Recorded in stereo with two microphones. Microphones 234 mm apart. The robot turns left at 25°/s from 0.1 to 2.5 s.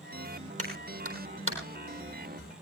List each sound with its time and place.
0.6 s a clap: 75° right (ahead or behind), 4 m; by 1.6 s 60° right (ahead or behind), 4 m